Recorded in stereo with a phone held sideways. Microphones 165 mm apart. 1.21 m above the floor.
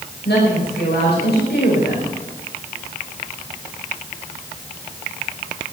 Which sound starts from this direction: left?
A woman speaking, at 0.2 s.